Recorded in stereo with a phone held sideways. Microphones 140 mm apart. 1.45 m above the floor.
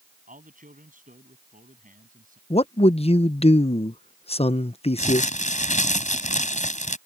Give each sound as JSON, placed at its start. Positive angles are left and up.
{"t": 0.3, "sound": "a man speaking", "side_deg": -70}
{"t": 2.5, "sound": "a man speaking", "side_deg": 45}
{"t": 5.0, "sound": "crumpling", "side_deg": 60}